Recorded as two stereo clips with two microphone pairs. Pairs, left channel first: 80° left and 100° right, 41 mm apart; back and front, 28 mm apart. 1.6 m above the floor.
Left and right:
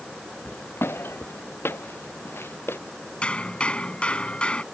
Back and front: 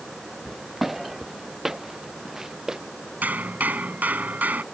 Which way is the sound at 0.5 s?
85° left.